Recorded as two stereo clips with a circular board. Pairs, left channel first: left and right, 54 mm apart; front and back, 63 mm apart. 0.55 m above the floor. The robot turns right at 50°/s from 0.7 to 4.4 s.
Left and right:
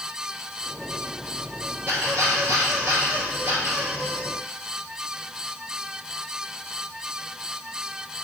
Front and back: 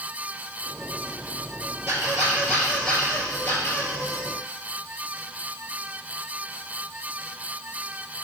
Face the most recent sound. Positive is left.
turn(degrees=-15)